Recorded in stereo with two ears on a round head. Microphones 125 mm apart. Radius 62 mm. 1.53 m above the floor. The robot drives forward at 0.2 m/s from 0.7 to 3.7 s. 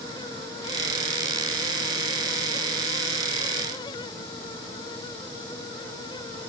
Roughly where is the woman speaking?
I don't hear a woman speaking.